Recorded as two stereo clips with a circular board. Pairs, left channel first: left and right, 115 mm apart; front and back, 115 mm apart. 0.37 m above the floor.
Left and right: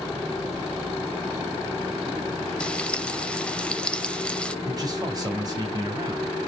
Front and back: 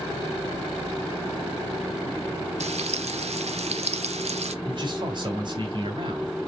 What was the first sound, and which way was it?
Frying, 170° left.